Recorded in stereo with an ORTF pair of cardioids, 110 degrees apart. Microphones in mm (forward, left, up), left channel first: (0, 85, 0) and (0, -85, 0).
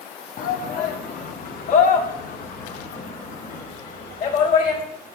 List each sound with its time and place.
0.4 s a shout: 55° left, 1.9 m; by 4.8 s 50° left, 4.5 m